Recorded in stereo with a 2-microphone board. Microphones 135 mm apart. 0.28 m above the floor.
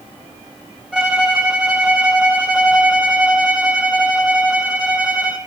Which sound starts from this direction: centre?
A violin, at 0.9 s.